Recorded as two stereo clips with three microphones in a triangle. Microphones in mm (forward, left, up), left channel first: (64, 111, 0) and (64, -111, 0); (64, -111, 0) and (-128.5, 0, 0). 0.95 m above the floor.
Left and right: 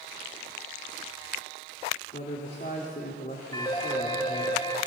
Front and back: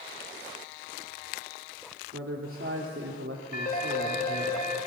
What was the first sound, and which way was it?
A man speaking, 135° left.